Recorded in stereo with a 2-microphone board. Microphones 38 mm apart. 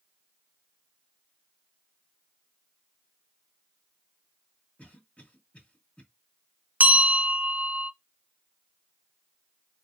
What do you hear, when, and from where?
4.8 s a cough: 40° left (ahead or behind), 1.9 m
6.8 s a bell: 45° right (ahead or behind), 0.5 m